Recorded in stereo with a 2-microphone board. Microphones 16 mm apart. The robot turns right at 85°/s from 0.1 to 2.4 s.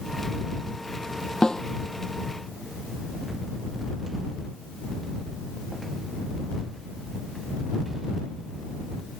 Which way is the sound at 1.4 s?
55° left (ahead or behind).